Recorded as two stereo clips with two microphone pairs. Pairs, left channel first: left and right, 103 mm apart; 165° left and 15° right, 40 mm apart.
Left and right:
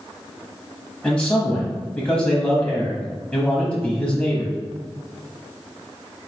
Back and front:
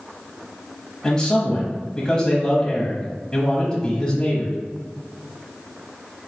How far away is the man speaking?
About 1.0 m.